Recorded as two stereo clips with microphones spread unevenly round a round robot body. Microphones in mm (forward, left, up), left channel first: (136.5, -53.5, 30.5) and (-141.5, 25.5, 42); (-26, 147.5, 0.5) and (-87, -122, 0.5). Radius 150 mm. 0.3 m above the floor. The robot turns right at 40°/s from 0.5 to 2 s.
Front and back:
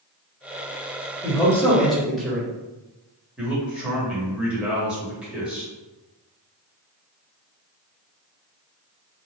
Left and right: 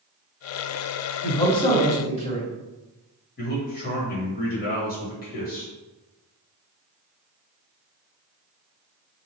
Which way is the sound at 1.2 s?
40° left.